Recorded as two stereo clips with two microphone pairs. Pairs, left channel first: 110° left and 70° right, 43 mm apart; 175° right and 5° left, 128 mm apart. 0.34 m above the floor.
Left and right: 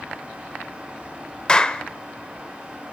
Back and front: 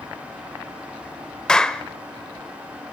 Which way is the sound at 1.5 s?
100° left.